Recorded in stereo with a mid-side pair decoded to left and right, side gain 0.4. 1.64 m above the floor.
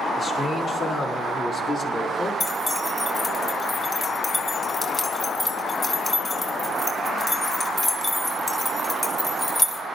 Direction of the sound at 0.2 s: 60° left.